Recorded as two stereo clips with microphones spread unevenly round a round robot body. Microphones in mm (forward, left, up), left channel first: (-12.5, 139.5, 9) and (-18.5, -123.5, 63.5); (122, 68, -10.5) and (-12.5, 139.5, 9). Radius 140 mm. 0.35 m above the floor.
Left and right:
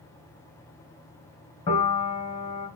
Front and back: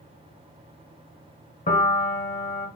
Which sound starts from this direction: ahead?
A piano, at 1.7 s.